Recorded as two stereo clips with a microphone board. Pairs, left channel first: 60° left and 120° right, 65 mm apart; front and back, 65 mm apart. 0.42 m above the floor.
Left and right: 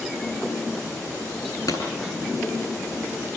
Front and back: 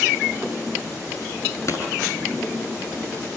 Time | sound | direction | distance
1.7 | a pop | 45° left | 9 m